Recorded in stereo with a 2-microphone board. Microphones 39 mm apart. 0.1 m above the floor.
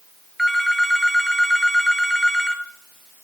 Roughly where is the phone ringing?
Centre.